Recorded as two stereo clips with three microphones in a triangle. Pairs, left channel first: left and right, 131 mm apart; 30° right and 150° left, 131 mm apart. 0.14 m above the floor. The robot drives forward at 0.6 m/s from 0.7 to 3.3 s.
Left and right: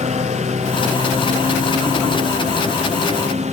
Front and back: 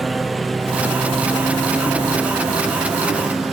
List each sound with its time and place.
0.0 s a lawn mower: 120° right